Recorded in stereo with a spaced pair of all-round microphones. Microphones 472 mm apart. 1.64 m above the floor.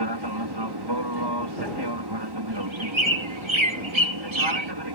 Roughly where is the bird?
Right.